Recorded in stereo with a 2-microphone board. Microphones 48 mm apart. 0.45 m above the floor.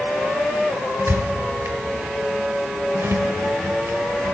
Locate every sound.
1.0 s a squeak: 65° right (ahead or behind), 0.7 m